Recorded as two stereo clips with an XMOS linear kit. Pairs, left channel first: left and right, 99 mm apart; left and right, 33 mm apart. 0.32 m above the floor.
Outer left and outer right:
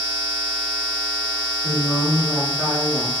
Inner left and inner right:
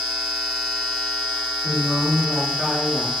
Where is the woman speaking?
20° right (ahead or behind), 1.0 m.